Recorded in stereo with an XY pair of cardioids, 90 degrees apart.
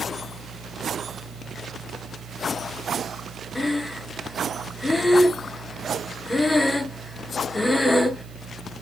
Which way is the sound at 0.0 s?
55° right.